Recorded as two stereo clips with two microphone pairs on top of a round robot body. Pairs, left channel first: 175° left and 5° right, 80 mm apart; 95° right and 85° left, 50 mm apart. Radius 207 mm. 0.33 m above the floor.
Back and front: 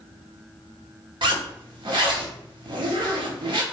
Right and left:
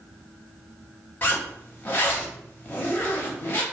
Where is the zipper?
35° right, 0.5 m.